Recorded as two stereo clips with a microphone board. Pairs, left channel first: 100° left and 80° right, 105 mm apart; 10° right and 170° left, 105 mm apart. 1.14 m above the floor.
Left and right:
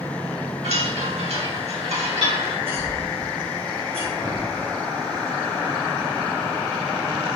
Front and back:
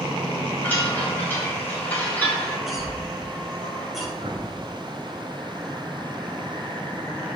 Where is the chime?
85° right, 3.5 m.